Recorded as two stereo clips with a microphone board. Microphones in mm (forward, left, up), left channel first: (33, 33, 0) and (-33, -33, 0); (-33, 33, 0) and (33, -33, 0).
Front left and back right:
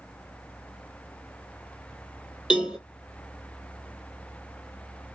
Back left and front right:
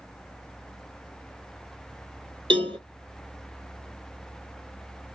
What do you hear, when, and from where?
2.5 s a cowbell: 55° right, 0.8 m